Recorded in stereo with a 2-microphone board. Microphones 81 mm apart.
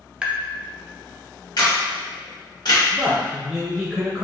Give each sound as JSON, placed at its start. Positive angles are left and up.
{"t": 0.2, "sound": "tapping", "side_deg": -10, "distance_m": 0.7}
{"t": 1.6, "sound": "a camera shutter", "side_deg": 50, "distance_m": 1.8}
{"t": 2.9, "sound": "a man speaking", "side_deg": -5, "distance_m": 0.9}